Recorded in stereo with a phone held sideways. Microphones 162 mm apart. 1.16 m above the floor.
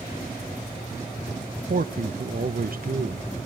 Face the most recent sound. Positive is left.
turn(degrees=-70)  # may be behind; listen again after turning